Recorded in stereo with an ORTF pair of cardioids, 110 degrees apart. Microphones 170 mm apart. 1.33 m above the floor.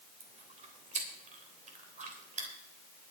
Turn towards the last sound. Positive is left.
turn(degrees=-45)